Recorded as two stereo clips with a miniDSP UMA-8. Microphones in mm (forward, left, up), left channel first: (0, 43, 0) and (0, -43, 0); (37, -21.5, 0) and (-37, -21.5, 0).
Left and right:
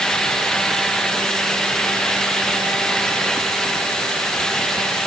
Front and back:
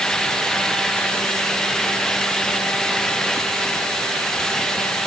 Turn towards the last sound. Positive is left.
No sound to turn to.